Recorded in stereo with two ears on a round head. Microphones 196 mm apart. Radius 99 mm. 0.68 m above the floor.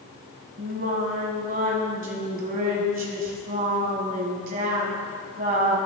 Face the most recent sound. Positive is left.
turn(degrees=-40)  # may be behind; listen again after turning